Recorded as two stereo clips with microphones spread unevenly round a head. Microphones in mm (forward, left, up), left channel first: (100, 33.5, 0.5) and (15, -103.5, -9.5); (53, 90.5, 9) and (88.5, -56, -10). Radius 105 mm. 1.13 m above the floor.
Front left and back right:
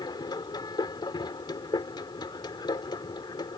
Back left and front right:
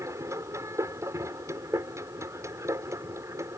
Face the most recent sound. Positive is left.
turn(degrees=-5)